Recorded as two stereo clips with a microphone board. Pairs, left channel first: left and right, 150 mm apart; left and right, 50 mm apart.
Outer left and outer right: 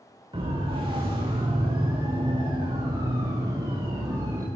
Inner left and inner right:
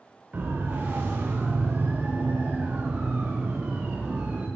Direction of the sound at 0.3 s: 35° right (ahead or behind).